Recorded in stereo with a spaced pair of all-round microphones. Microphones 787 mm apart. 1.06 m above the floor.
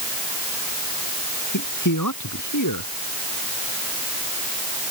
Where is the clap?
No clap in this recording.